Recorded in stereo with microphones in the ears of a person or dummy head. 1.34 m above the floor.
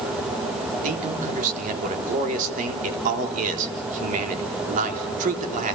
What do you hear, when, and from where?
0.8 s a man speaking: 45° right (ahead or behind), 3.5 m